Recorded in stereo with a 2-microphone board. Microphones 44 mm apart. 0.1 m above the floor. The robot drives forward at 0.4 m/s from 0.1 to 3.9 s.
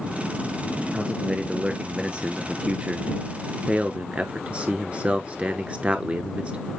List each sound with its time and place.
0.9 s a man speaking: 20° right (ahead or behind), 1.6 m; by 6.7 s 25° right (ahead or behind), 1.2 m